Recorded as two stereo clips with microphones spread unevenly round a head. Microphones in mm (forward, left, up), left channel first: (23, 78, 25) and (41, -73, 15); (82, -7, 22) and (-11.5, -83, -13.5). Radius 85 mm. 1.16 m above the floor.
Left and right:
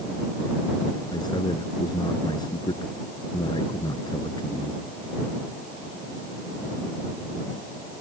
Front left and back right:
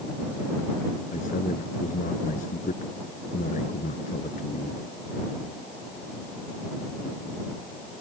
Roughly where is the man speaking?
Ahead left.